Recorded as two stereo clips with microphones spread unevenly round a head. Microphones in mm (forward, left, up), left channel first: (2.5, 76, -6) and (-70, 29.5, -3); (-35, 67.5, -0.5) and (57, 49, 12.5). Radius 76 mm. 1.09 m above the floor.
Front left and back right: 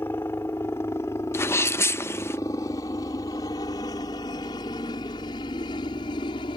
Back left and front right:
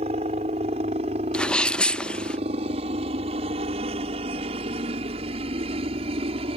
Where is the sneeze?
90° left.